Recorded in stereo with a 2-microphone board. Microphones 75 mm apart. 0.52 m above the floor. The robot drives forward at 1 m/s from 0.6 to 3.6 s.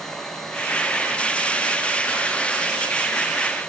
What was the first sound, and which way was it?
Only background noise.